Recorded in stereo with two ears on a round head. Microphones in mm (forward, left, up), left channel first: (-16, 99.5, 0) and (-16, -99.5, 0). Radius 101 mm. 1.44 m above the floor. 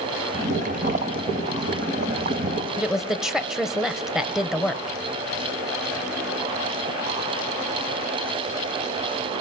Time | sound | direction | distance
0.3 | boiling | 40° right (ahead or behind) | 1.6 m
2.8 | a woman speaking | 5° right (ahead or behind) | 1.0 m